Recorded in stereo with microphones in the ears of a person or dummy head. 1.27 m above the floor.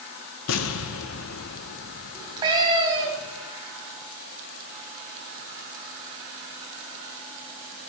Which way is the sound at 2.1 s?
25° right (ahead or behind).